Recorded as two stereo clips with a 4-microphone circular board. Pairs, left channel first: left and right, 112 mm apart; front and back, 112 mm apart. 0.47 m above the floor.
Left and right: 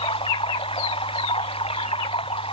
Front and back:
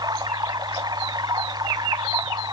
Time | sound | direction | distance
0.0 | running water | 125° left | ?